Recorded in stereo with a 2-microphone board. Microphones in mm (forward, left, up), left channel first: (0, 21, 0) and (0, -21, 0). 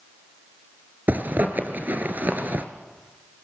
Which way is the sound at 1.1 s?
45° right (ahead or behind).